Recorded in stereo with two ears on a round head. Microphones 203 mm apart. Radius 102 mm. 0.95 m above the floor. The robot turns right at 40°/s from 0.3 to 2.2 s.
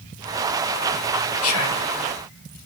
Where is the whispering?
65° left (ahead or behind), 1.2 m; by 1.9 s 70° left (ahead or behind), 1.2 m.